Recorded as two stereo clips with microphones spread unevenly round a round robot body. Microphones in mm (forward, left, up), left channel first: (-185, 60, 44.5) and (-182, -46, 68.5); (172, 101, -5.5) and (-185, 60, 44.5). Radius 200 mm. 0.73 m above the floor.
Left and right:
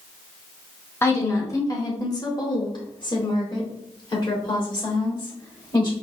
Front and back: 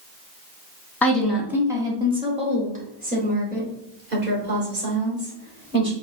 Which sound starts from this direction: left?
A woman speaking, at 1.0 s.